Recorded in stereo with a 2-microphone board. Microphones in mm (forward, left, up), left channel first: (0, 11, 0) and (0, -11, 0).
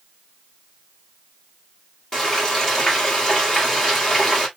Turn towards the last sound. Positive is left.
turn(degrees=10)  # may be behind; listen again after turning